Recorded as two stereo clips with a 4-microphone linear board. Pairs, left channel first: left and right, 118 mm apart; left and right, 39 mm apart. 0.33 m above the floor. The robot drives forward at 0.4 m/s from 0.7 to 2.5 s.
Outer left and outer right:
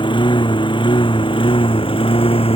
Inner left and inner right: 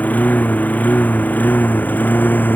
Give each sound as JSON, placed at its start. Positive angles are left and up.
{"t": 0.0, "sound": "a lawn mower", "side_deg": 45}